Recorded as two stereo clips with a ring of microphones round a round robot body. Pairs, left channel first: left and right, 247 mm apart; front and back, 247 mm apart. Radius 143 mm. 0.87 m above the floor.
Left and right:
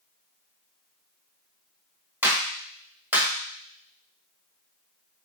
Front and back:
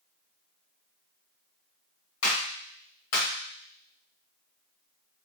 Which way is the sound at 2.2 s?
5° right.